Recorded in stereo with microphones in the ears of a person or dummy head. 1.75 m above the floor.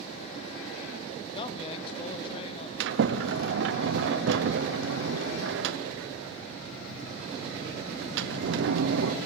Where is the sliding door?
75° right (ahead or behind), 0.8 m.